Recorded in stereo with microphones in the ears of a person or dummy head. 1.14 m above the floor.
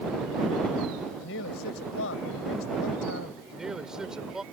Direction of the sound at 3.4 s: 5° right (ahead or behind).